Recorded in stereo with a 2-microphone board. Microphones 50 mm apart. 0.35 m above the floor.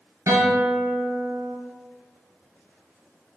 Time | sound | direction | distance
0.3 | a guitar | 65° right (ahead or behind) | 1.2 m